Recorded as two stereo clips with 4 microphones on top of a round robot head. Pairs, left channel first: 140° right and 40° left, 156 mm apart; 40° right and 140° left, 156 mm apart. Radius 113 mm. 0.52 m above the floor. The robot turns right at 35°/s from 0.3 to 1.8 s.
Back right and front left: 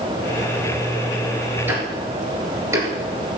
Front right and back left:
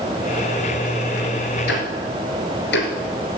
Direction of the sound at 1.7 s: 35° right.